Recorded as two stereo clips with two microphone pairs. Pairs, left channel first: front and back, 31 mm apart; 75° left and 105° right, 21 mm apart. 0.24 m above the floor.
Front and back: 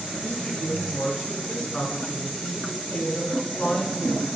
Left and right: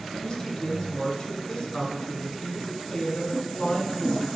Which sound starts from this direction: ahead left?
A woman speaking, at 0.2 s.